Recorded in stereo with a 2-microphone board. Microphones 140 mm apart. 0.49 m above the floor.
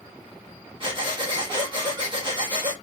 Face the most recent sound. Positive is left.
turn(degrees=-35)  # may be behind; listen again after turning